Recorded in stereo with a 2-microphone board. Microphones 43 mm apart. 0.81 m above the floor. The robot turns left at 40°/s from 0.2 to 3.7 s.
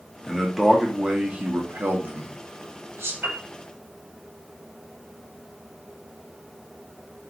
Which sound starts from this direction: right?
A piano, at 3.2 s.